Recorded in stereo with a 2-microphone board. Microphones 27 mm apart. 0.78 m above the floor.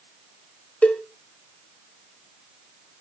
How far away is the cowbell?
About 1.5 m.